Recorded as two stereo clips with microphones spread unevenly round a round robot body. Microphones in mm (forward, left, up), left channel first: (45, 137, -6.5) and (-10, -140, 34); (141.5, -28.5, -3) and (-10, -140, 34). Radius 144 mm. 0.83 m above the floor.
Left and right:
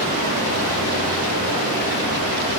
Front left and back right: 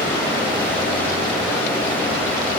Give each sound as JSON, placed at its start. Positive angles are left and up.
{"t": 0.0, "sound": "running water", "azimuth_deg": -45, "distance_m": 4.5}